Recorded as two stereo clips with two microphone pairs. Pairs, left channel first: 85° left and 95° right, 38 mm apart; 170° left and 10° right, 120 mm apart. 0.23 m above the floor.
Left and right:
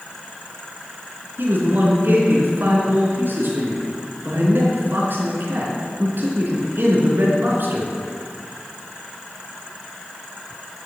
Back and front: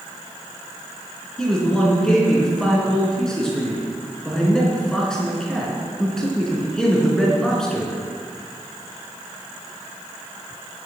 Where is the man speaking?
105° right, 3.5 m.